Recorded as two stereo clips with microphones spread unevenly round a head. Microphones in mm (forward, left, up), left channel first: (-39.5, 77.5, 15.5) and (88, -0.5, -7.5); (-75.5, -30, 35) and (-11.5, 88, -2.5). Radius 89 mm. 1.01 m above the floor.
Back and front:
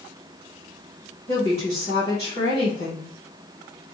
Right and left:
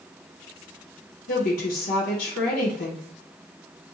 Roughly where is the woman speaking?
Behind right.